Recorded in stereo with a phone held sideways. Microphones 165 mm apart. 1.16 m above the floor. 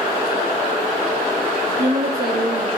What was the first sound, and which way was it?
A woman speaking, 75° right (ahead or behind).